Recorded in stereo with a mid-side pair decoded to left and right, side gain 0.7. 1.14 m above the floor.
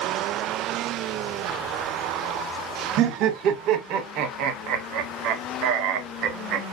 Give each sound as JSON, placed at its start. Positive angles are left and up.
{"t": 3.0, "sound": "laughter", "azimuth_deg": -60, "distance_m": 0.9}